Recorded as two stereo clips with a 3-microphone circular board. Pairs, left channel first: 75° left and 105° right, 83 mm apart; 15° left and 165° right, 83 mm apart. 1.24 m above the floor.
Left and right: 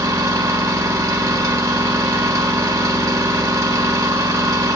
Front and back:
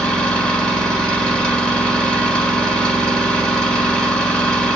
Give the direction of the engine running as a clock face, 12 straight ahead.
2 o'clock.